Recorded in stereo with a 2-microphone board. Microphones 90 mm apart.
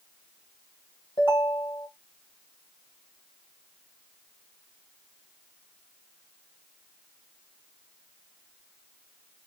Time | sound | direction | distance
1.2 | a ringtone | 60° left (ahead or behind) | 2 m